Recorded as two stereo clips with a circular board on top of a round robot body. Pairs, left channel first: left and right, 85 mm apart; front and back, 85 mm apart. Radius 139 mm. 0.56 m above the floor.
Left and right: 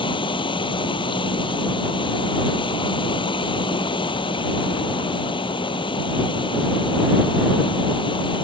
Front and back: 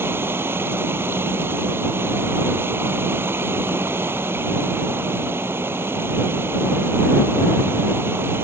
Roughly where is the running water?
Behind left.